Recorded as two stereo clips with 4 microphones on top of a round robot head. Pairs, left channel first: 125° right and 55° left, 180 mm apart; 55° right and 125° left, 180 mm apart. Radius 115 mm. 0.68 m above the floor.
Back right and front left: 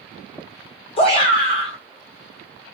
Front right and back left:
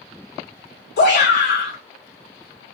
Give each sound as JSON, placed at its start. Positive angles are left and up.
{"t": 1.0, "sound": "a shout", "azimuth_deg": -70, "distance_m": 2.5}